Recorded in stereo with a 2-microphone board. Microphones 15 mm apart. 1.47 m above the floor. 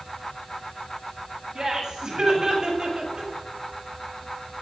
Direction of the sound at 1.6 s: 40° right (ahead or behind).